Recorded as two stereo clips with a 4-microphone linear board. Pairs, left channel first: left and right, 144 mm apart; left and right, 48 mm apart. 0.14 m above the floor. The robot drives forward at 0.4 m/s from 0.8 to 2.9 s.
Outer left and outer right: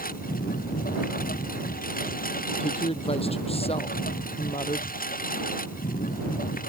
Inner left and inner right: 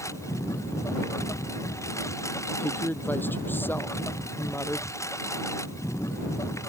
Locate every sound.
0.0 s a lawn mower: 90° left; by 6.7 s 80° left
2.6 s a woman speaking: 45° left (ahead or behind)